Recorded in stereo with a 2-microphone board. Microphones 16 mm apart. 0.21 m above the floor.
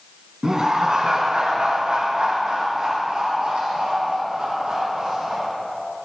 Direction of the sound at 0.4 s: 30° right (ahead or behind).